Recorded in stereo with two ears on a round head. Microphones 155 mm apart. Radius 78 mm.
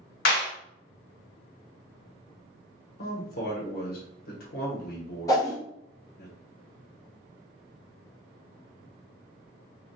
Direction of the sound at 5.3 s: 20° left (ahead or behind).